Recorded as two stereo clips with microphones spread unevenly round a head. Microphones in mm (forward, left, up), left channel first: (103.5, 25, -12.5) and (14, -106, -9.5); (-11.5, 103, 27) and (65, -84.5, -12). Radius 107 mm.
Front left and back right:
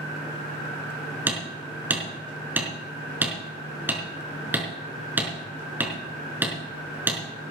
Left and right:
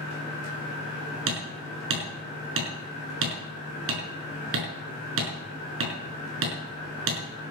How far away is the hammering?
About 5 m.